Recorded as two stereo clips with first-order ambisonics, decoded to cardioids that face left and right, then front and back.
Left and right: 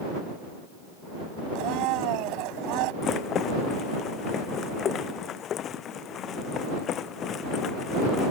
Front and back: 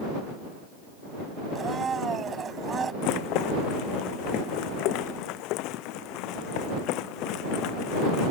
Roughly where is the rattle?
Ahead left.